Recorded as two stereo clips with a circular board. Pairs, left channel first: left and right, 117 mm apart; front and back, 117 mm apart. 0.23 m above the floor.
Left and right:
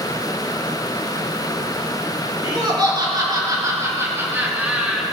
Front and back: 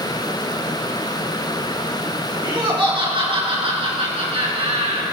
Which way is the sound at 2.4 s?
135° right.